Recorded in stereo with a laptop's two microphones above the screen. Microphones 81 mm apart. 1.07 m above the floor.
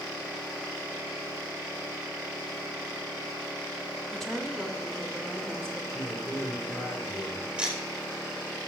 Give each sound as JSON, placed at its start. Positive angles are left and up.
{"t": 4.1, "sound": "a woman speaking", "side_deg": 5, "distance_m": 2.0}
{"t": 5.9, "sound": "a man speaking", "side_deg": 55, "distance_m": 2.5}
{"t": 7.6, "sound": "ticking", "side_deg": -10, "distance_m": 4.0}